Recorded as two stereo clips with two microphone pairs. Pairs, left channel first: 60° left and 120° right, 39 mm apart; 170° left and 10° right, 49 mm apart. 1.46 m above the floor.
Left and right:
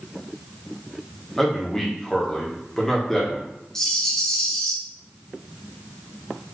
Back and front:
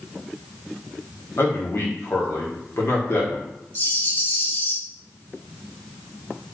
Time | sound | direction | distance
1.4 | a man speaking | 140° left | 1.4 m
3.8 | a rattle | 135° left | 1.0 m